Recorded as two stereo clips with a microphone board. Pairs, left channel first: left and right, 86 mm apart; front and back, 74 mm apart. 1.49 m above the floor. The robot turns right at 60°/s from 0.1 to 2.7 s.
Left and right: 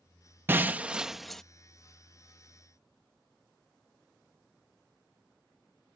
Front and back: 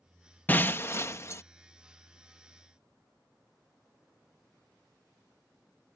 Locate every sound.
0.5 s breaking glass: 45° right; by 1.4 s 10° left